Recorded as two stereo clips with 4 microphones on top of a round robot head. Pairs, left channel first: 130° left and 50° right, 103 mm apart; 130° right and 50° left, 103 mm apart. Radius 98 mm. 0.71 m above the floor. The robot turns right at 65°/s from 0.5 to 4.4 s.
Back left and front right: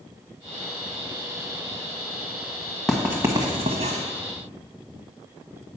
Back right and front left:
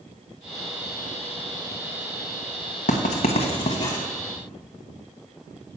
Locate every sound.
2.9 s writing: 140° right, 0.8 m; by 4.0 s 65° right, 0.8 m